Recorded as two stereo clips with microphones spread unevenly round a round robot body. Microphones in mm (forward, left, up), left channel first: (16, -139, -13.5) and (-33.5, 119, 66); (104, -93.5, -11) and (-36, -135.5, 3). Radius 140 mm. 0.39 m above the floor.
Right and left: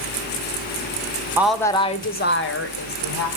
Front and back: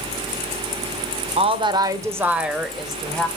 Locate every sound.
1.4 s a woman speaking: 155° right, 0.9 m; by 3.3 s 70° right, 2.0 m